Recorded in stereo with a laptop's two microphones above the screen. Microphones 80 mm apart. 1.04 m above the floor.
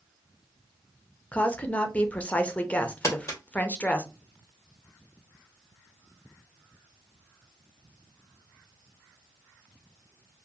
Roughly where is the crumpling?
Left.